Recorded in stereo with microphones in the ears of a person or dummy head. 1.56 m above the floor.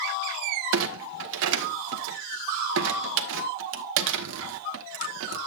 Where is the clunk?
65° right (ahead or behind), 1.2 m.